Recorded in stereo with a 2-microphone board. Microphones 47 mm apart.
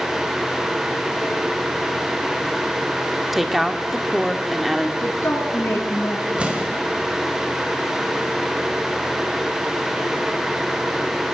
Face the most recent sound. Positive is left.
turn(degrees=-25)  # may be behind; listen again after turning